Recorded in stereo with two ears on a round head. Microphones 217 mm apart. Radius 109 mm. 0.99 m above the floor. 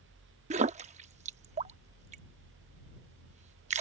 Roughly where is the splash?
Right.